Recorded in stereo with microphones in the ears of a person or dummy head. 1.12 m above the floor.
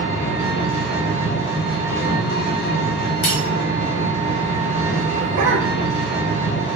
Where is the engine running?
45° left (ahead or behind), 0.9 m.